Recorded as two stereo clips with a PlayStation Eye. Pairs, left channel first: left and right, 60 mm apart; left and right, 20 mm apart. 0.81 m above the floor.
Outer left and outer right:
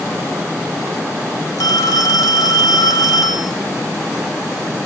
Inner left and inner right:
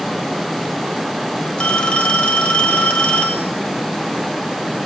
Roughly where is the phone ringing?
Left.